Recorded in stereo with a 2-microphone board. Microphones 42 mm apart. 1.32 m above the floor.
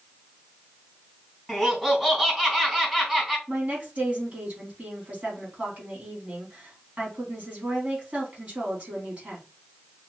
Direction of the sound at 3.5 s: 35° right (ahead or behind).